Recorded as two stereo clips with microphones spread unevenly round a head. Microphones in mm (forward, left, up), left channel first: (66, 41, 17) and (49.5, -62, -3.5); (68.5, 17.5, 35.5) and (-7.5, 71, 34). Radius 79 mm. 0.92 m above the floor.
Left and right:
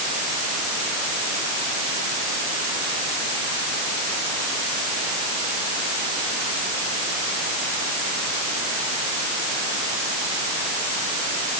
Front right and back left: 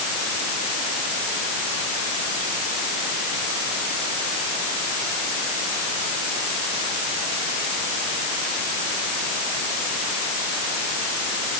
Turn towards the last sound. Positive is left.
No sound to turn to.